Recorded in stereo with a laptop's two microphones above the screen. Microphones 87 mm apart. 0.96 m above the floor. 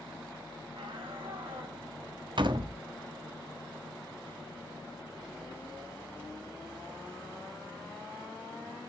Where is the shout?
80° right, 6.5 m; by 1.8 s 75° right (ahead or behind), 7 m.